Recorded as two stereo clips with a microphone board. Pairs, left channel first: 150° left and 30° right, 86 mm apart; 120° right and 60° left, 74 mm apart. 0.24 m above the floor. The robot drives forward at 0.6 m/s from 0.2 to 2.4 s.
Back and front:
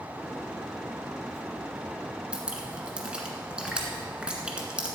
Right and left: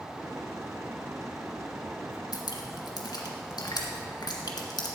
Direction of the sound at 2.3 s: 105° right.